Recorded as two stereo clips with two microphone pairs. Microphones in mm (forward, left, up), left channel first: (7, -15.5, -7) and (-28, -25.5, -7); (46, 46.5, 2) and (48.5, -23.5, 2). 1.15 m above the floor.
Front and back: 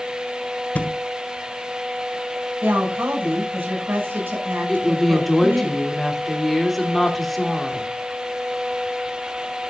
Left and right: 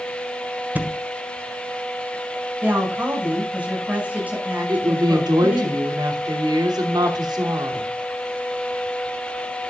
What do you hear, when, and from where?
0.8 s a thud: 25° right, 1.4 m
2.6 s a woman speaking: 155° right, 6 m
4.7 s a woman speaking: 70° right, 2.5 m